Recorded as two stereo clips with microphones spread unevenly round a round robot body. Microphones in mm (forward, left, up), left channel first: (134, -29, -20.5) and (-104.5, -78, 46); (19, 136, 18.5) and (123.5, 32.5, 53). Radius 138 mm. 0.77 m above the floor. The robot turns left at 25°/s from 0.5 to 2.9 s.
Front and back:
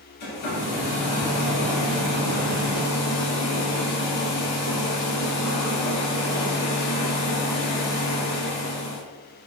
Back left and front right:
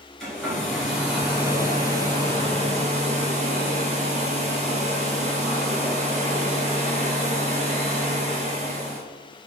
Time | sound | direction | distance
0.2 | a hair dryer | 45° left | 1.7 m